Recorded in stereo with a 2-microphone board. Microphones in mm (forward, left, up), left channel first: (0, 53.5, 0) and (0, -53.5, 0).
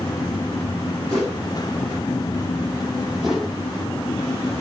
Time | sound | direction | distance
1.1 | a whoosh | 40° right (ahead or behind) | 4.5 m
3.2 | a whoosh | centre (ahead or behind) | 1.6 m